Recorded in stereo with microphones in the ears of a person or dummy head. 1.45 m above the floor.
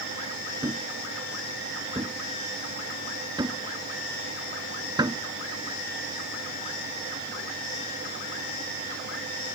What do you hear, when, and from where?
0.6 s a thud: 15° right (ahead or behind)